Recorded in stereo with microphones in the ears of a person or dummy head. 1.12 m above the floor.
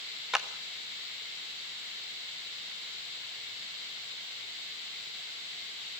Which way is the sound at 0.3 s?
5° right (ahead or behind).